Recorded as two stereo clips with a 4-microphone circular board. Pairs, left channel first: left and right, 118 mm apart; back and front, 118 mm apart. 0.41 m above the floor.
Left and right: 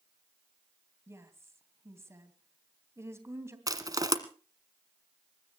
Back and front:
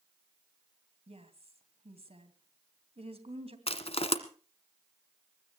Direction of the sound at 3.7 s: 150° right.